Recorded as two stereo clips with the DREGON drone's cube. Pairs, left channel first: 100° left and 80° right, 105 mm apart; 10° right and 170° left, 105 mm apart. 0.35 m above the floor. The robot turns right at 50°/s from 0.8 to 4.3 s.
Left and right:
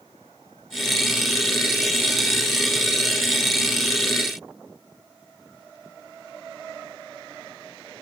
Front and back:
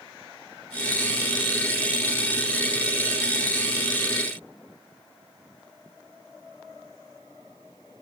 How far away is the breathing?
I don't hear breathing.